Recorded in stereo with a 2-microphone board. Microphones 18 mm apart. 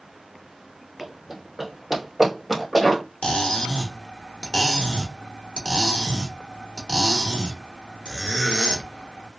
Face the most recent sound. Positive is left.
turn(degrees=85)